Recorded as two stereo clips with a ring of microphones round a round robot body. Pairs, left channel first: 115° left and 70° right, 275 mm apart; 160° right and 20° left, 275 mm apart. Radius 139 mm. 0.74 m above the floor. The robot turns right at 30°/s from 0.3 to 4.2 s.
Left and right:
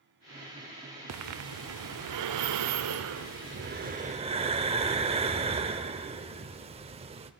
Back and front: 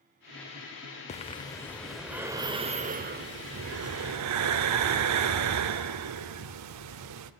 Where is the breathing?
95° right, 0.6 m; by 7.3 s straight ahead, 0.6 m.